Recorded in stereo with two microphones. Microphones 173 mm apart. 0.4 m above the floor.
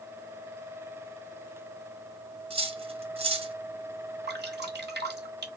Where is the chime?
No chime in this recording.